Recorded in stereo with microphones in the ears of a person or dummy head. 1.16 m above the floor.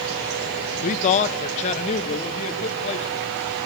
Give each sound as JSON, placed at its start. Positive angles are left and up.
{"t": 0.8, "sound": "a man speaking", "side_deg": 35, "distance_m": 0.5}